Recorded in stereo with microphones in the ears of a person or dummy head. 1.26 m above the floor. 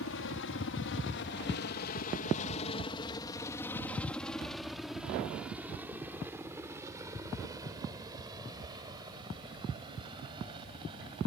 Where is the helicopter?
65° left (ahead or behind); by 11.3 s 25° right (ahead or behind).